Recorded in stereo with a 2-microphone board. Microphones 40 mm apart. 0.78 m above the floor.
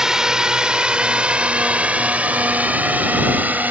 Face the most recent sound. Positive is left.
turn(degrees=-50)  # may be behind; listen again after turning